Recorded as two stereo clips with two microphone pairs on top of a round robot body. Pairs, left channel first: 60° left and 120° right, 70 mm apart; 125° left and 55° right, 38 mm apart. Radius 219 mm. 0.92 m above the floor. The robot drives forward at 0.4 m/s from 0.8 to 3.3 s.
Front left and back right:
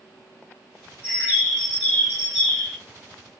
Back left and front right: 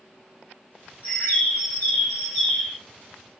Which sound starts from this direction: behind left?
A bird, at 1.0 s.